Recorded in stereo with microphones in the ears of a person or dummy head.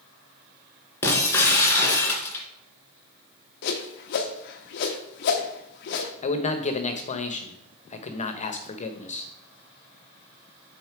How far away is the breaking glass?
About 1.9 m.